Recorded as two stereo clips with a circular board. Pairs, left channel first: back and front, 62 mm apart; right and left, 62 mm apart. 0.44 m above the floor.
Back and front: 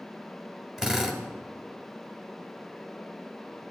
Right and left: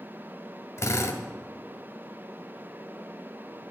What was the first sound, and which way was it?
A drill, 80° right.